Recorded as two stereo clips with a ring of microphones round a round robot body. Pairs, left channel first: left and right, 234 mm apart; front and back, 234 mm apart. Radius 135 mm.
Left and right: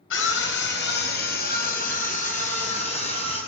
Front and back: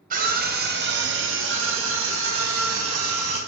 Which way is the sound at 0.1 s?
125° left.